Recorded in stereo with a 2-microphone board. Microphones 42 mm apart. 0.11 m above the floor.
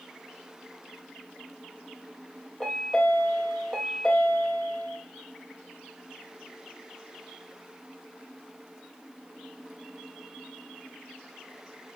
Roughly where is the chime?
Left.